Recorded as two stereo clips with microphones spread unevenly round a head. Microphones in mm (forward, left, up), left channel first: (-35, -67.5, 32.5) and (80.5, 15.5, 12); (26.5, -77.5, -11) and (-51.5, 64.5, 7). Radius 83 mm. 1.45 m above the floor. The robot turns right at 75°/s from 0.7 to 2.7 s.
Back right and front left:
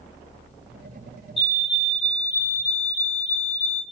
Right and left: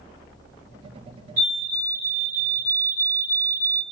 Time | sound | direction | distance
1.4 | a fire alarm | 160° left | 4 m